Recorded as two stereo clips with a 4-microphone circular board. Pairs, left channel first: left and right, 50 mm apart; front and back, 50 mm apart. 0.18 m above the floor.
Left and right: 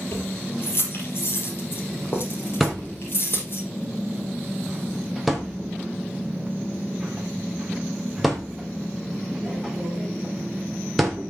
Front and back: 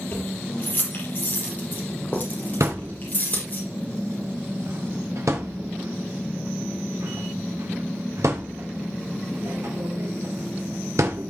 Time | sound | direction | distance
0.1 | keys jangling | 55° left | 4.5 m
2.6 | a thud | 175° right | 3 m